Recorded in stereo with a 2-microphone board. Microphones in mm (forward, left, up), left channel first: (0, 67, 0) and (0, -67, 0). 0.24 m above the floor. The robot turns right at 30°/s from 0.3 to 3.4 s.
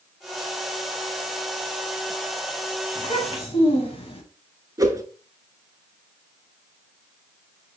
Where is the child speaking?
40° left (ahead or behind), 0.9 m; by 4.2 s 45° left (ahead or behind), 0.9 m.